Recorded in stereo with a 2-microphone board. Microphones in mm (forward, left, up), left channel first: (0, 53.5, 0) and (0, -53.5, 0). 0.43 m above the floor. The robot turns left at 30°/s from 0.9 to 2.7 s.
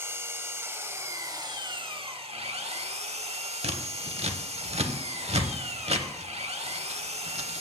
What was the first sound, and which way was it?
An engine running, 25° right.